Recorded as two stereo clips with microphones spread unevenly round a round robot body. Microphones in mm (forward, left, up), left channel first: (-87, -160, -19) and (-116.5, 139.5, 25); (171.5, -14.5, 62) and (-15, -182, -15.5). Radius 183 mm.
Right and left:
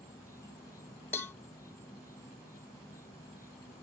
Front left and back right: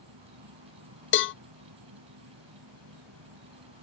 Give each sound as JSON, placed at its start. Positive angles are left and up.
{"t": 0.0, "sound": "an insect", "azimuth_deg": -165}
{"t": 1.1, "sound": "a cowbell", "azimuth_deg": 5}